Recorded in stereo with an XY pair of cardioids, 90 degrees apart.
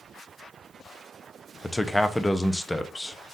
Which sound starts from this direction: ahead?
A man speaking, at 1.6 s.